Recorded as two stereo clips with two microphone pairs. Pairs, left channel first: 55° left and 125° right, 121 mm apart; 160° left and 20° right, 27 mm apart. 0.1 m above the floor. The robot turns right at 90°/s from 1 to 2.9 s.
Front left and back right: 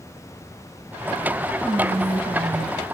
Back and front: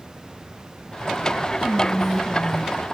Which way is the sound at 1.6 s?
135° right.